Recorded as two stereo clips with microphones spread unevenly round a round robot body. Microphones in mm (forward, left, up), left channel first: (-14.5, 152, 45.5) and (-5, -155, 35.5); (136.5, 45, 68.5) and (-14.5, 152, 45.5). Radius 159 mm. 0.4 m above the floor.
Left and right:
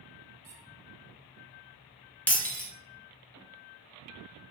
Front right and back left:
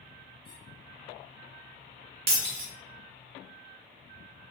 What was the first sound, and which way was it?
A squeak, 130° right.